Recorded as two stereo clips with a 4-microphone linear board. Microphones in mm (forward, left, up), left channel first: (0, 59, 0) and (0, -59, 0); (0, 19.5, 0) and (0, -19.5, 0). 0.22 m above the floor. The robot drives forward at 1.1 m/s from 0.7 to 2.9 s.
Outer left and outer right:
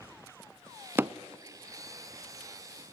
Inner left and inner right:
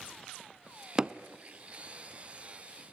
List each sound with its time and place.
1.0 s hammering: 20° right (ahead or behind), 0.8 m; by 1.1 s 25° right (ahead or behind), 0.7 m